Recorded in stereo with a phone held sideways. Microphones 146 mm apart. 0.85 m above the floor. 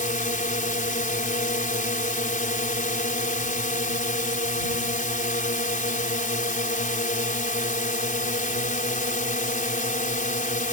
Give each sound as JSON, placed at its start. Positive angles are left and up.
{"t": 0.0, "sound": "a drone", "side_deg": 65}